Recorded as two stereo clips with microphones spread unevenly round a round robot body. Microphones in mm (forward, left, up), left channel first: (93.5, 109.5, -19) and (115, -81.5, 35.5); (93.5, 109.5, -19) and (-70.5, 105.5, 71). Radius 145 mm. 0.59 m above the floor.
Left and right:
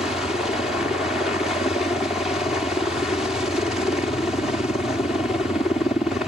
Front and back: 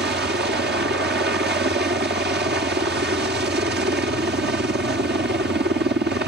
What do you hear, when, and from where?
0.0 s a helicopter: 165° left